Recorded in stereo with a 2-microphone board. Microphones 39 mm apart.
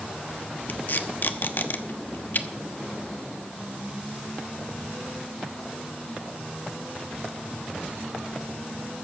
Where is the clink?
I don't hear a clink.